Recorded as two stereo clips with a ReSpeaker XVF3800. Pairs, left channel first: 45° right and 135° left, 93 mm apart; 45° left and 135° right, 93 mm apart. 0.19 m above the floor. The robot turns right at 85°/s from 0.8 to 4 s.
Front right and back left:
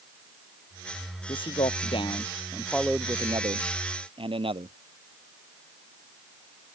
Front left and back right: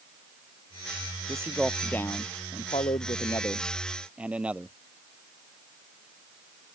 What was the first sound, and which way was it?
A man speaking, 80° right.